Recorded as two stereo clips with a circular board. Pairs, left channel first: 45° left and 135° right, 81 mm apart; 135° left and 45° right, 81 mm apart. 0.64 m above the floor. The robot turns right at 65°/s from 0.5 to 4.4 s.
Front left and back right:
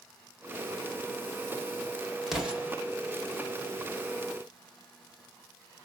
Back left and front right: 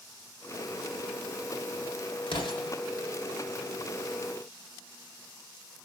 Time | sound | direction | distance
2.3 | an explosion | 135° left | 1.3 m